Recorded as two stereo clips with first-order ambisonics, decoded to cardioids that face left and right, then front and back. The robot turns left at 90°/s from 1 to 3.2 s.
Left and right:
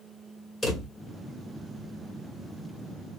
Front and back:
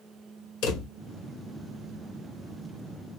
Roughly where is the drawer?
Ahead.